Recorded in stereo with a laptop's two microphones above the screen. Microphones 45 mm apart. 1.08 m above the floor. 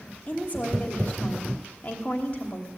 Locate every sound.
0.3 s a woman speaking: 35° left (ahead or behind), 3 m